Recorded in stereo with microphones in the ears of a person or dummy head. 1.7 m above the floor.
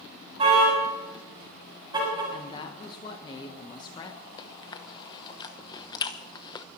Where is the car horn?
30° right (ahead or behind), 7 m; by 2.2 s 20° right (ahead or behind), 6.5 m.